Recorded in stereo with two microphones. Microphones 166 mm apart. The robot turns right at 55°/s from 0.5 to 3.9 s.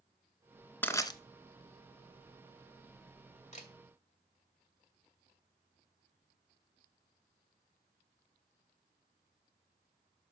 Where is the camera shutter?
45° left (ahead or behind), 1.6 m; by 3.7 s 50° left (ahead or behind), 1.6 m.